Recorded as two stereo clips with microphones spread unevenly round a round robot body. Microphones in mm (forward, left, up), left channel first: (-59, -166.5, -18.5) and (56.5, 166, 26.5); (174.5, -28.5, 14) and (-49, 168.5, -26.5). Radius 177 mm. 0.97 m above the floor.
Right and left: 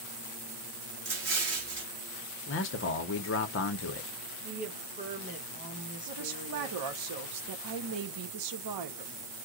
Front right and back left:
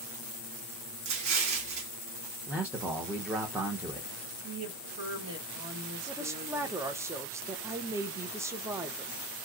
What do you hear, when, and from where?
1.1 s an explosion: 130° left, 1.4 m
2.5 s a man speaking: 145° right, 0.7 m
4.4 s a woman speaking: 140° left, 1.2 m
6.1 s a woman speaking: 70° left, 0.8 m